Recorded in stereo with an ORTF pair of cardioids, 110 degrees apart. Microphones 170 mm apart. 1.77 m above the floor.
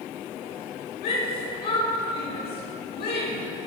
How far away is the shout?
About 7.5 m.